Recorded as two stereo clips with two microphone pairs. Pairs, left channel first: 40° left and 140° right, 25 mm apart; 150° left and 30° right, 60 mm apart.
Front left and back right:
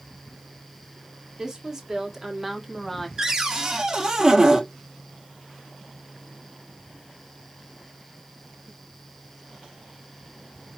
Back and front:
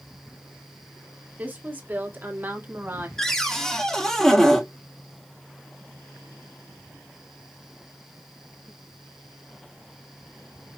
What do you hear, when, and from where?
1.4 s a woman speaking: 80° right, 1.8 m; by 3.1 s 30° right, 1.3 m
3.2 s a cupboard door: 140° right, 1.2 m